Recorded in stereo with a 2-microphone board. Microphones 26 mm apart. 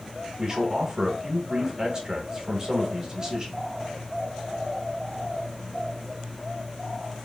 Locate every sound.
0.4 s a man speaking: 25° right (ahead or behind), 0.8 m